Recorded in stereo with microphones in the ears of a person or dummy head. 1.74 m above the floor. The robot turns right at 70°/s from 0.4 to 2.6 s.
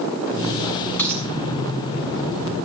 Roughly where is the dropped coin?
Centre.